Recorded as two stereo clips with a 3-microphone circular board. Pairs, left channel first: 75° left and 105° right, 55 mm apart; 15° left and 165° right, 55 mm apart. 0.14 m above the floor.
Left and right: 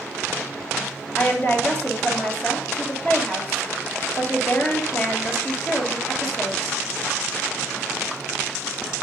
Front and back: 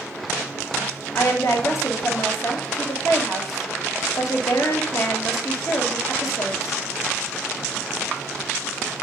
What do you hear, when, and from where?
1.1 s a woman speaking: 20° left, 2.5 m